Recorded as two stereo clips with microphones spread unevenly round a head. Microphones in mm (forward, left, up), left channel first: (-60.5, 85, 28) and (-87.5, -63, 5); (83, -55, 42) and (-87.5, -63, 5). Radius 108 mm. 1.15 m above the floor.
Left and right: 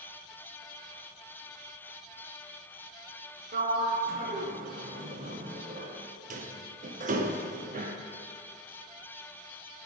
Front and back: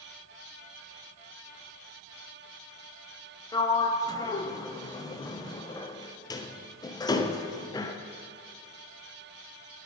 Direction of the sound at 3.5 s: 70° right.